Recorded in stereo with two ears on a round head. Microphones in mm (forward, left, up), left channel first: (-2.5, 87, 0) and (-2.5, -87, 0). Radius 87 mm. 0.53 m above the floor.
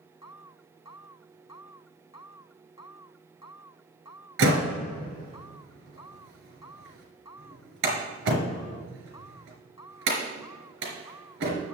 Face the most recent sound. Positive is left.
turn(degrees=-65)  # may be behind; listen again after turning